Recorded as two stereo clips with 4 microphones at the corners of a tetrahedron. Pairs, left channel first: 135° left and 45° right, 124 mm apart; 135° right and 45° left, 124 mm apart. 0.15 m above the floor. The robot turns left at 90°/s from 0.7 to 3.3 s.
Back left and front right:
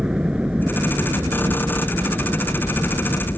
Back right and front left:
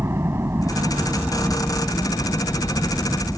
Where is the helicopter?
20° left; by 3.4 s 150° left.